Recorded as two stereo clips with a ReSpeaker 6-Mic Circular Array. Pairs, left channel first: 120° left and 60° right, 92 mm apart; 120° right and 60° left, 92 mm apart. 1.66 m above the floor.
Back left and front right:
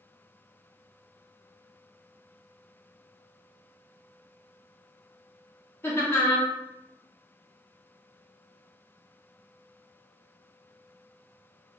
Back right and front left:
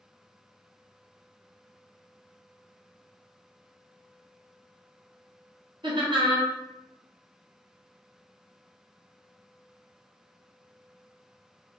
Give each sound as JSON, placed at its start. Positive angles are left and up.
{"t": 5.8, "sound": "laughter", "azimuth_deg": 60, "distance_m": 0.8}